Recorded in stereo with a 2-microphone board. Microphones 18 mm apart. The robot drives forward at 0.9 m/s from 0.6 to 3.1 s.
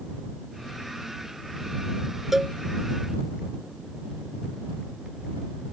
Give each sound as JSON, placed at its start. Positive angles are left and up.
{"t": 2.3, "sound": "a cowbell", "side_deg": -15}